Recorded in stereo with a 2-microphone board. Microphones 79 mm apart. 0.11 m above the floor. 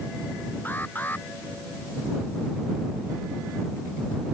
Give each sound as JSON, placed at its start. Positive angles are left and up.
{"t": 0.7, "sound": "an alarm", "side_deg": 25}